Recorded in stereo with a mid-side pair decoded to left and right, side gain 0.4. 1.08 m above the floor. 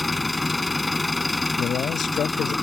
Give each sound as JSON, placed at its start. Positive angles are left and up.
{"t": 0.0, "sound": "an engine running", "azimuth_deg": 20}
{"t": 1.6, "sound": "a man speaking", "azimuth_deg": 65}